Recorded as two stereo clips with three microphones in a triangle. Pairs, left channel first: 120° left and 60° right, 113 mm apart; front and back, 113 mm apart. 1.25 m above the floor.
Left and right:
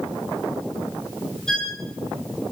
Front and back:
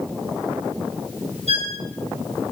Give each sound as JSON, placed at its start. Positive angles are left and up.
{"t": 1.5, "sound": "a violin", "azimuth_deg": -155, "distance_m": 8.0}